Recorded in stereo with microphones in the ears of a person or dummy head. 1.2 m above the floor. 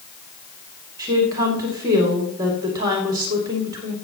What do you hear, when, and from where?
1.0 s a woman speaking: 25° right (ahead or behind), 2.5 m